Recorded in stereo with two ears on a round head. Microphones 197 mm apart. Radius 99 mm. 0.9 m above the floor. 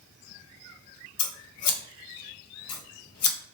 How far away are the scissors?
About 0.7 m.